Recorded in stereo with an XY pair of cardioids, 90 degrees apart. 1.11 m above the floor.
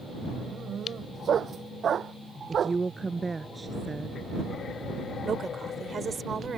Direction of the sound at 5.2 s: 50° right.